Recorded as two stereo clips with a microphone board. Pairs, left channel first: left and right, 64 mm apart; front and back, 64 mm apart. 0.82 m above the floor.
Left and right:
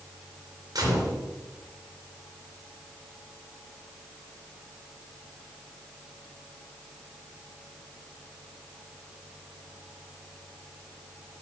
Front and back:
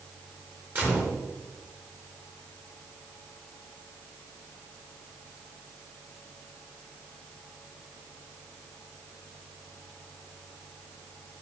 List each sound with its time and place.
0.8 s a gunshot: 120° right, 3 m